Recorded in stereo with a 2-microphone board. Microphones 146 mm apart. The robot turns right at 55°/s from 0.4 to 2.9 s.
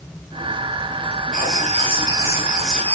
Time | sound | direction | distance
1.3 | writing | 75° right | 2.5 m